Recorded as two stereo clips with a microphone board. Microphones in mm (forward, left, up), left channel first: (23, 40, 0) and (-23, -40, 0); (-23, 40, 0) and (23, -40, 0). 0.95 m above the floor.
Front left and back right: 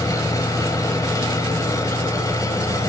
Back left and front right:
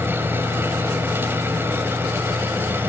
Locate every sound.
0.0 s an engine running: 10° left, 3 m